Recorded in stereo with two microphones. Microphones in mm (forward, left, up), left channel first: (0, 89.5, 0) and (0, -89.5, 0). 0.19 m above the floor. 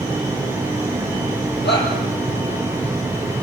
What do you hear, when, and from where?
1.6 s a shout: 75° left (ahead or behind), 5 m